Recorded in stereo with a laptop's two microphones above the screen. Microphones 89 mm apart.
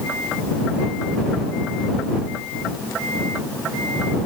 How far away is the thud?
No thud in this recording.